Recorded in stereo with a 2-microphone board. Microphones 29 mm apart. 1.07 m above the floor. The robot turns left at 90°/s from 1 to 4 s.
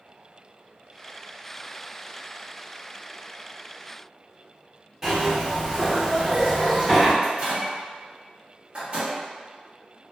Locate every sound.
5.0 s a zipper: 20° right (ahead or behind), 1.4 m
7.2 s a microwave: 40° right (ahead or behind), 1.0 m